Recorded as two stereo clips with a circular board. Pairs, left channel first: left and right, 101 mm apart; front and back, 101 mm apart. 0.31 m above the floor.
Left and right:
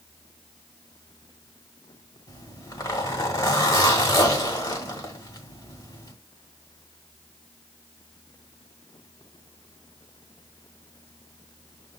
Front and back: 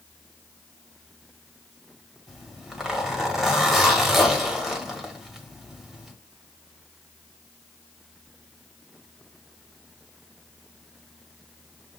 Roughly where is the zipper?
Left.